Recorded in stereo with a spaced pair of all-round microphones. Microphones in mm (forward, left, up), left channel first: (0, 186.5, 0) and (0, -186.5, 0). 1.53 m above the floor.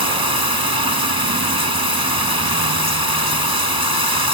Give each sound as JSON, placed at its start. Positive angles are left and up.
{"t": 0.0, "sound": "running water", "side_deg": -75}